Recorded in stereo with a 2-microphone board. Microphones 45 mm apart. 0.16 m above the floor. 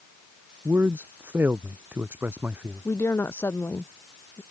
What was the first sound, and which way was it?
A man speaking, 50° right (ahead or behind).